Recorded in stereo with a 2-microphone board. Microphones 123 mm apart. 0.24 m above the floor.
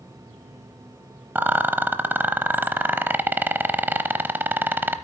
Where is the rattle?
15° right (ahead or behind), 0.9 m.